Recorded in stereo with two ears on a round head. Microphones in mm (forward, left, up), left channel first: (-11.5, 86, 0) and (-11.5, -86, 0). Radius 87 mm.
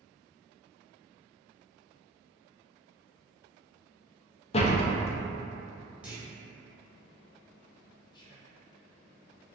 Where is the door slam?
35° left (ahead or behind), 0.5 m.